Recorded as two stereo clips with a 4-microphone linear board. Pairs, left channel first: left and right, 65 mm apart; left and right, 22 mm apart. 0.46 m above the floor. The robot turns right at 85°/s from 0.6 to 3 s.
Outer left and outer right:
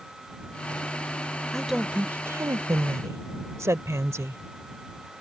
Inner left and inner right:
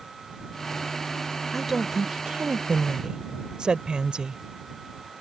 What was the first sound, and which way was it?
A woman speaking, 170° left.